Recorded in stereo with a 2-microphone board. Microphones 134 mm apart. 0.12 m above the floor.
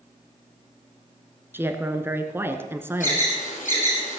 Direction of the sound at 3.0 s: 70° left (ahead or behind).